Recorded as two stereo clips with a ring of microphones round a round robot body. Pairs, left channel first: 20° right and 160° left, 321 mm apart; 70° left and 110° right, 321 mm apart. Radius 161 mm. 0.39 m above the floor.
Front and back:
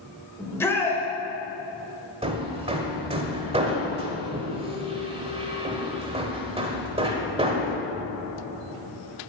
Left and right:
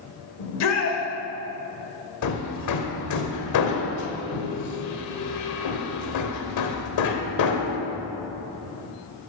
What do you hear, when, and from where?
0.4 s a shout: 60° left, 1.8 m
2.2 s hammering: 85° left, 1.1 m